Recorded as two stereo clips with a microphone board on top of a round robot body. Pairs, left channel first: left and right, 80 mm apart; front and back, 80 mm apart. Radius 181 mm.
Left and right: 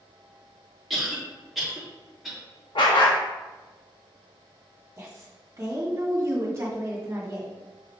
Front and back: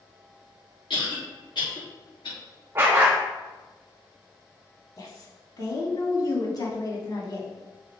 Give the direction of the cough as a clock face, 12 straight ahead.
12 o'clock.